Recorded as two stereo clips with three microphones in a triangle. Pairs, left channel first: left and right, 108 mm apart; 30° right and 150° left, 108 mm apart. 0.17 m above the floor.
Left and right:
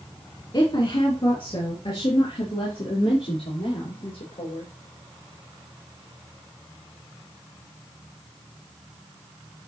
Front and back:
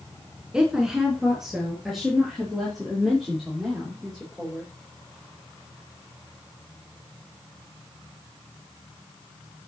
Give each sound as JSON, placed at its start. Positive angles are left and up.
{"t": 0.5, "sound": "a woman speaking", "azimuth_deg": 70, "distance_m": 2.0}